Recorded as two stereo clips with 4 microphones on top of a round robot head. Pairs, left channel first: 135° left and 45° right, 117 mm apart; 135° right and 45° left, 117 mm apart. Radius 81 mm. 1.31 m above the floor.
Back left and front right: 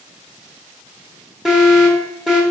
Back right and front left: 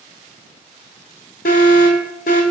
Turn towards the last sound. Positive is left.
turn(degrees=-135)